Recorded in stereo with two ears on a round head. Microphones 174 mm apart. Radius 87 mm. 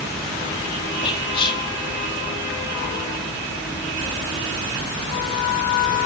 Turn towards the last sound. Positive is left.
turn(degrees=25)  # may be behind; listen again after turning